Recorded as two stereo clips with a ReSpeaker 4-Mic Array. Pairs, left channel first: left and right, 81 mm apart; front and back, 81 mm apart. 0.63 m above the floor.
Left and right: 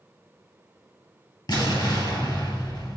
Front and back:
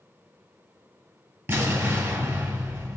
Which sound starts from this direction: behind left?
An explosion, at 1.5 s.